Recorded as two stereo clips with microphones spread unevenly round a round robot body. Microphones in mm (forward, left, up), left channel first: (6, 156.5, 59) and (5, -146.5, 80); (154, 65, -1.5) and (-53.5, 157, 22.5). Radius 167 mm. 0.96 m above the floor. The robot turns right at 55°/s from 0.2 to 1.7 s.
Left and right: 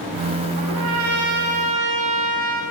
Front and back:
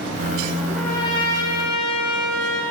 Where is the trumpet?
130° right, 1.4 m; by 2.6 s 65° right, 1.4 m.